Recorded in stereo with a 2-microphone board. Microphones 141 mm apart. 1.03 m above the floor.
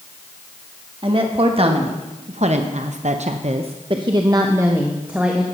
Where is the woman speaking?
40° right (ahead or behind), 1.8 m; by 5.4 s 5° right (ahead or behind), 1.5 m.